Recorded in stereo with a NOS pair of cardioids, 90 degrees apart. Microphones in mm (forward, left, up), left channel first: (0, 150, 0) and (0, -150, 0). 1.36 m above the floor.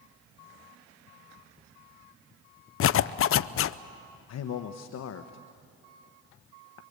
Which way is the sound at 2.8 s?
45° left.